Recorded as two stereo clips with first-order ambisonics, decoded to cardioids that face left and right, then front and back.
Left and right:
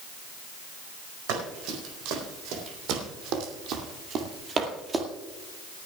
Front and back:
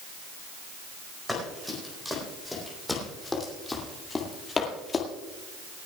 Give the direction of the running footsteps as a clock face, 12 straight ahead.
3 o'clock.